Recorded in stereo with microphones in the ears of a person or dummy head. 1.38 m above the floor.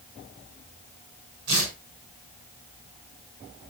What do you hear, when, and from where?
1.5 s tearing paper: 90° right, 8.5 m